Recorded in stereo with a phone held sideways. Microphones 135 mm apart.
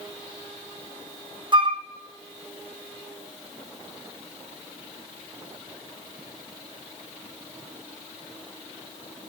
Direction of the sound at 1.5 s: 35° right (ahead or behind).